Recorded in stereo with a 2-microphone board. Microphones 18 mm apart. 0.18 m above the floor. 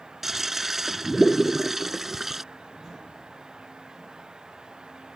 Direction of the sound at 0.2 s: 10° right (ahead or behind).